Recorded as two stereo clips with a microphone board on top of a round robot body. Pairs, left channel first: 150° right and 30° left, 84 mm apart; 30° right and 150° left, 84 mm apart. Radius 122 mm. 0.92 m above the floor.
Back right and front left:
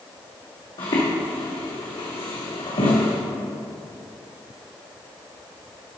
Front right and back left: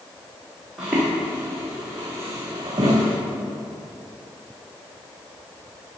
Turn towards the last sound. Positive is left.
turn(degrees=-165)